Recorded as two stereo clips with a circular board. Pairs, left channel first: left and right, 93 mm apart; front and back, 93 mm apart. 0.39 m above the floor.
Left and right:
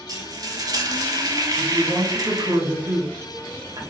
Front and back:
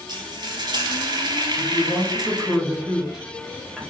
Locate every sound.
0.1 s frying: 140° right, 0.8 m
1.6 s a woman speaking: 95° right, 1.7 m